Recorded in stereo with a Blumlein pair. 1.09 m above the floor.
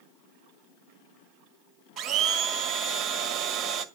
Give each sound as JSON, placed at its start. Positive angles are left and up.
{"t": 2.0, "sound": "a blender", "azimuth_deg": -25, "distance_m": 1.6}